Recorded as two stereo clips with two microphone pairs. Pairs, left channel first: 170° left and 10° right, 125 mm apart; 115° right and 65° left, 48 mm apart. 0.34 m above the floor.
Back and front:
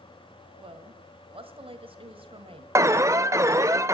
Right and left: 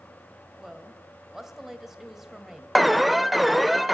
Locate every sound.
0.6 s a woman speaking: 15° right, 1.7 m
2.8 s an alarm: 25° right, 0.6 m